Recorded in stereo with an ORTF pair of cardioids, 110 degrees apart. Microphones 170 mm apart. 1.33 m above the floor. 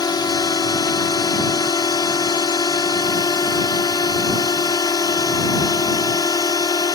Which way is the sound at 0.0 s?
25° left.